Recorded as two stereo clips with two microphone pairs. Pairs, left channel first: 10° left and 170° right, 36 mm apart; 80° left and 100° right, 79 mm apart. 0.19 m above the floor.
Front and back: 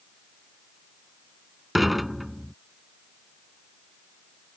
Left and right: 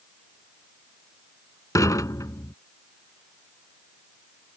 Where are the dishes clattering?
105° left.